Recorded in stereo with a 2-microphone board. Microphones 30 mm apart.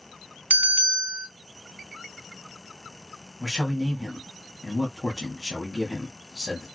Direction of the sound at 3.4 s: 5° left (ahead or behind).